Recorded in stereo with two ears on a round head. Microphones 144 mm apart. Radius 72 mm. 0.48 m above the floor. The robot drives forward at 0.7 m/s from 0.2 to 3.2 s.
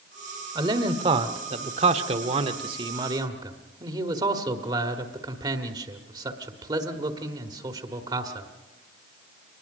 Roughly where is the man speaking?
Right.